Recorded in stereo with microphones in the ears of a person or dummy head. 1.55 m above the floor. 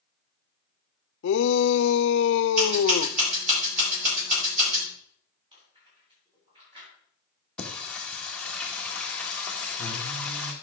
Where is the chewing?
30° right (ahead or behind), 7 m.